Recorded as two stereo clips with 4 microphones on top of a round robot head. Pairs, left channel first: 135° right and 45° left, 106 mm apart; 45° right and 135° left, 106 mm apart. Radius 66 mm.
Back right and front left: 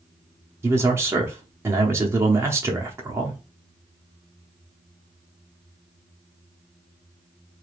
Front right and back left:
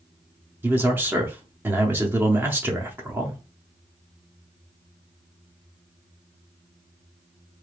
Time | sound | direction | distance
0.6 | a man speaking | 80° left | 0.8 m